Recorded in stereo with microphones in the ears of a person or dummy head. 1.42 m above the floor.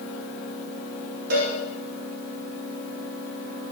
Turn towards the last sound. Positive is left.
turn(degrees=-70)  # may be behind; listen again after turning